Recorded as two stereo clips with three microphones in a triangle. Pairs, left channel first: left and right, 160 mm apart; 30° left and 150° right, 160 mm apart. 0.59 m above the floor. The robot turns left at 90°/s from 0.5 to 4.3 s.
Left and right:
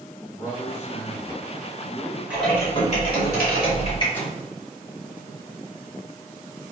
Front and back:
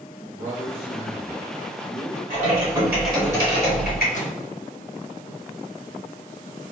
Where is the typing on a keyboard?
170° right, 1.5 m; by 4.0 s 30° left, 1.5 m.